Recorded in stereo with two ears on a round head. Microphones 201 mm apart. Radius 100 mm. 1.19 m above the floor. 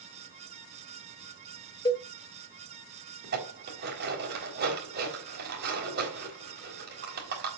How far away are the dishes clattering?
About 3.5 m.